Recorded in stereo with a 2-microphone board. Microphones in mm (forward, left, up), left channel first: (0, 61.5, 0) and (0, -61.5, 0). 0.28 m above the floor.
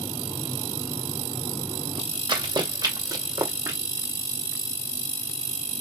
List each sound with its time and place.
2.3 s running footsteps: 35° right (ahead or behind), 2.5 m; by 3.8 s 20° right (ahead or behind), 3 m